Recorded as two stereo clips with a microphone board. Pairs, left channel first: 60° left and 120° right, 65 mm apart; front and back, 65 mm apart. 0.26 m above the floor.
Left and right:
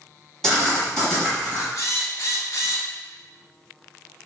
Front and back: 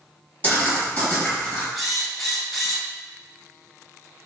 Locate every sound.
0.4 s writing: 20° right, 1.5 m
1.8 s a drill: 90° left, 0.8 m